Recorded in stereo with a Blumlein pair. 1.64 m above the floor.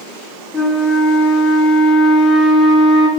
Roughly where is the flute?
Ahead.